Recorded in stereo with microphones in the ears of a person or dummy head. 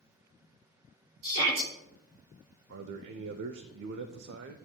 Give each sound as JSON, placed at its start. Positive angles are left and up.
{"t": 1.2, "sound": "a shout", "side_deg": -70, "distance_m": 5.5}
{"t": 2.7, "sound": "a man speaking", "side_deg": -65, "distance_m": 0.6}